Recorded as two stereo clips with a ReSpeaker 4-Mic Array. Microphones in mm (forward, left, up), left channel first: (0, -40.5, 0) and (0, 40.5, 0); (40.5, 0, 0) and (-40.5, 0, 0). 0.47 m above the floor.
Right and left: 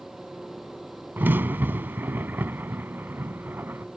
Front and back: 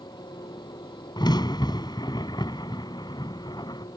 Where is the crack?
25° left.